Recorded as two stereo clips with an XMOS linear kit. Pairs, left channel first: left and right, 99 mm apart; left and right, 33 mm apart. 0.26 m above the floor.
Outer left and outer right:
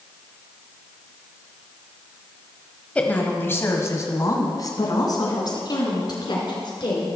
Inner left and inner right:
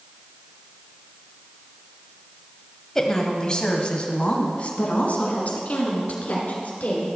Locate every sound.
3.0 s a woman speaking: 15° left (ahead or behind), 1.1 m; by 7.1 s 55° left (ahead or behind), 3 m